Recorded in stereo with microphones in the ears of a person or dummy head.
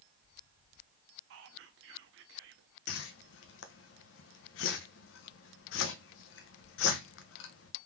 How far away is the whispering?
About 0.7 m.